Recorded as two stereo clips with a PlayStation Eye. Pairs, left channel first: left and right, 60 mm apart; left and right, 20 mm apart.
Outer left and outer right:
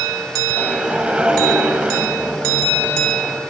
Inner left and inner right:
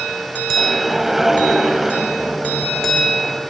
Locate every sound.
0.6 s a whoosh: 20° right (ahead or behind), 1.5 m